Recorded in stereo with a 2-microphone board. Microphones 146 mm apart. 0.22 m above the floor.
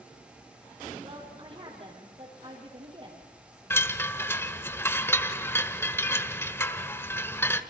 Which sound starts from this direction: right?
A woman speaking, at 1.0 s.